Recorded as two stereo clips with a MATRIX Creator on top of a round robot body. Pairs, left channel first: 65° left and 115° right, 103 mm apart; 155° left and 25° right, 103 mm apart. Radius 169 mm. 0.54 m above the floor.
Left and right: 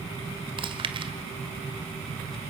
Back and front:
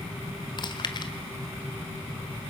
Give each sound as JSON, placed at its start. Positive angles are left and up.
{"t": 0.6, "sound": "chewing", "azimuth_deg": -155, "distance_m": 1.5}